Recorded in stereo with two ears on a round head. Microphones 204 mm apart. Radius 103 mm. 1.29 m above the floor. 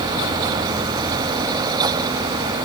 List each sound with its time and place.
Only background noise.